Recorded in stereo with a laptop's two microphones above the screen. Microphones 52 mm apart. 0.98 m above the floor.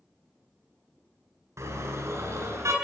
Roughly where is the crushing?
I don't hear crushing.